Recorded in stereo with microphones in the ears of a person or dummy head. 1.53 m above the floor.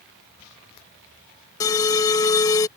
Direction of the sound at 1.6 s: 20° left (ahead or behind).